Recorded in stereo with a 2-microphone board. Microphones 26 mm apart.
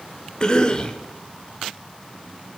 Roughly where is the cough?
Left.